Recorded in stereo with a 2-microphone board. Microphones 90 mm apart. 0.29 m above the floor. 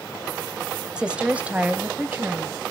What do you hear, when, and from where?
1.0 s a woman speaking: 10° right (ahead or behind), 1.0 m; by 2.7 s 20° right (ahead or behind), 2 m